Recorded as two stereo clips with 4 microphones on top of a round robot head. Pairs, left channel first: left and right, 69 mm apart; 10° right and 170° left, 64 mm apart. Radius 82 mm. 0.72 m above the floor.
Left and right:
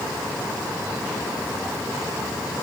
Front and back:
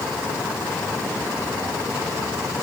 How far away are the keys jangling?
No keys jangling in this recording.